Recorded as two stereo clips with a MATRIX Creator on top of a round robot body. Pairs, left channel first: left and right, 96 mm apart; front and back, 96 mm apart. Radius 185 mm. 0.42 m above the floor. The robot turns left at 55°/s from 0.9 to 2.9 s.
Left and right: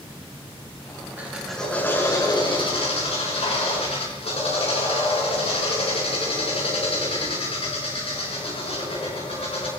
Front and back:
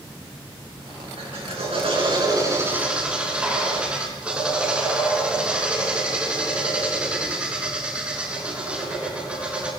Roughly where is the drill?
Behind.